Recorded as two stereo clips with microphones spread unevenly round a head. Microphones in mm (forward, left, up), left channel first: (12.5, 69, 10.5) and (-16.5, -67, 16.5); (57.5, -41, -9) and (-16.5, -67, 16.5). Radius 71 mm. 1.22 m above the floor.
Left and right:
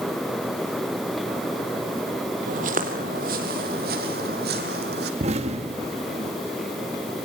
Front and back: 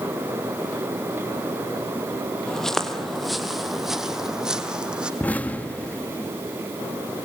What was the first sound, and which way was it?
Footsteps, 75° right.